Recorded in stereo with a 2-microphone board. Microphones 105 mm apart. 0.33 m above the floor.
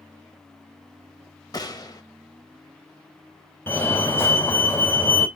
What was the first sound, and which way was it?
A gunshot, 40° left (ahead or behind).